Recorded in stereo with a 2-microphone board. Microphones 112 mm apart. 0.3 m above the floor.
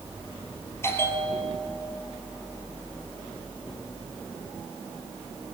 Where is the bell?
20° left (ahead or behind), 3 m.